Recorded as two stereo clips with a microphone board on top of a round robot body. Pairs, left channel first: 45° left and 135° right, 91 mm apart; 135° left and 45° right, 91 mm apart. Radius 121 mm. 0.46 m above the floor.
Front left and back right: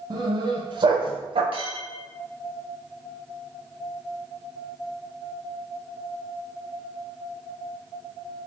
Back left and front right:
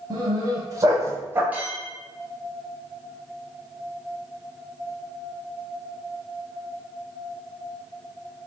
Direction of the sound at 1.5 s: 120° right.